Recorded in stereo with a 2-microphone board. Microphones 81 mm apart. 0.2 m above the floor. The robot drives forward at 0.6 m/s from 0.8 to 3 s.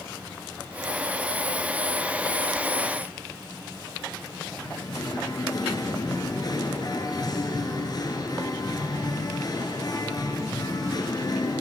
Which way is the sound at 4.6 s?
50° left (ahead or behind).